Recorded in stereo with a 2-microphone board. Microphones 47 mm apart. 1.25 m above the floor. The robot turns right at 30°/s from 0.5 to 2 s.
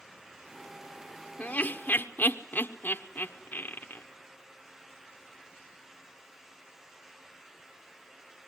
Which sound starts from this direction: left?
Laughter, at 1.4 s.